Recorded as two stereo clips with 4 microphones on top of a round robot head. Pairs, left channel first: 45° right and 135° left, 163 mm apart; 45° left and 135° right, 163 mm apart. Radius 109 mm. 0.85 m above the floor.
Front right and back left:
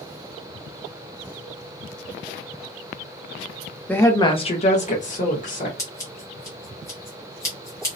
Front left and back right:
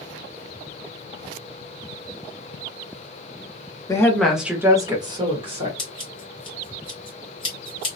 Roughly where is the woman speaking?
Ahead.